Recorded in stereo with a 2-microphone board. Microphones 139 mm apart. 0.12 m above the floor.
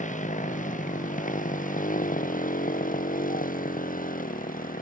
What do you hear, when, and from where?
0.0 s a motorcycle: 65° left (ahead or behind); by 4.8 s 85° left